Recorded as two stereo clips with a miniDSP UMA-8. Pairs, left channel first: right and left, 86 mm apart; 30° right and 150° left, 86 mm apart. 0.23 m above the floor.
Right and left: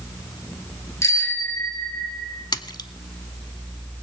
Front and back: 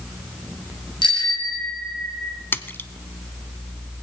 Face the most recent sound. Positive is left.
turn(degrees=-90)